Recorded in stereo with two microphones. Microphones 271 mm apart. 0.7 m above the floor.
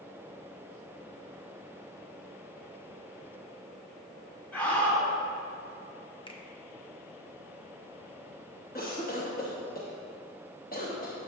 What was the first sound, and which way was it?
A scream, 5° left (ahead or behind).